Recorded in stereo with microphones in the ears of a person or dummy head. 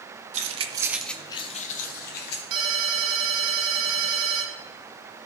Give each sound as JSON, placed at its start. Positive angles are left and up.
{"t": 0.3, "sound": "keys jangling", "side_deg": -45, "distance_m": 1.1}
{"t": 2.5, "sound": "a ringtone", "side_deg": -35, "distance_m": 1.9}